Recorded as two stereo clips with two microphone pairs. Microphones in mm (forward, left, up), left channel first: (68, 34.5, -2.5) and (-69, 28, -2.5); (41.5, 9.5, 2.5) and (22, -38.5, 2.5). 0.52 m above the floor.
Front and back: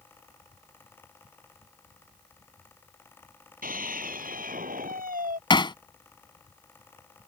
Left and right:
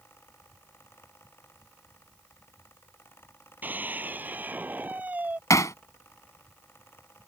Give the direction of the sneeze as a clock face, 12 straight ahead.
I don't hear a sneeze.